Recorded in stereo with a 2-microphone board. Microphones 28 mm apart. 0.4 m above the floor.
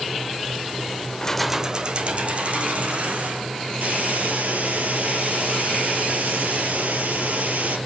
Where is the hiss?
70° right (ahead or behind), 3 m.